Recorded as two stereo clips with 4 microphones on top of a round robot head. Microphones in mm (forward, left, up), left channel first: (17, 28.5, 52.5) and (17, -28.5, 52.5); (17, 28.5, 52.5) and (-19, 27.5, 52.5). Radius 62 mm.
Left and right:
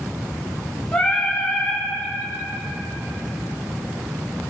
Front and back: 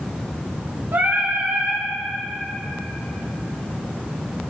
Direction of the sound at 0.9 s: 165° left.